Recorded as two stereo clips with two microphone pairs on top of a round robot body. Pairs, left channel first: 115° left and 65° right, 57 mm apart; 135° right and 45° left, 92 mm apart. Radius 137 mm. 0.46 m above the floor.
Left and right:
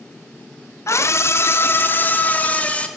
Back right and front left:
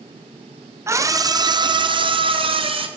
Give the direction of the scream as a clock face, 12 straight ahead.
8 o'clock.